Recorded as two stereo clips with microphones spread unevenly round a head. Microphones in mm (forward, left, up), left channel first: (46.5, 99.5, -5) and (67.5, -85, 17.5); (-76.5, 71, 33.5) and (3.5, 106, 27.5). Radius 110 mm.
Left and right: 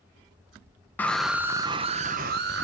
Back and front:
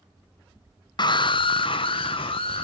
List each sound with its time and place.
1.0 s a scream: 175° left, 0.9 m; by 2.6 s 125° right, 1.1 m